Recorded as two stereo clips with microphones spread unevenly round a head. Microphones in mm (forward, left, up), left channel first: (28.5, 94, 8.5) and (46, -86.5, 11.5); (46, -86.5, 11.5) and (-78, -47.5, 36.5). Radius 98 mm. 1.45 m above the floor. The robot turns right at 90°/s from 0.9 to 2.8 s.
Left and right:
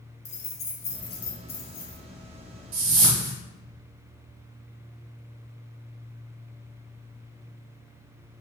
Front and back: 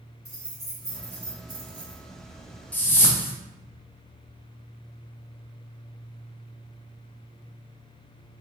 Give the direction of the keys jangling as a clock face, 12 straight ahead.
11 o'clock.